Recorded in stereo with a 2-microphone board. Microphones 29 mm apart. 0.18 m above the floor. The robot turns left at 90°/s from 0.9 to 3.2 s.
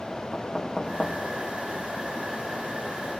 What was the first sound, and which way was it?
Knocking, 10° left (ahead or behind).